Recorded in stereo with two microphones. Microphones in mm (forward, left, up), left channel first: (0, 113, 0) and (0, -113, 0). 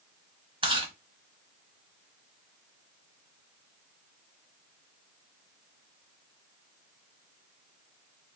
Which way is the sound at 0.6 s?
20° right (ahead or behind).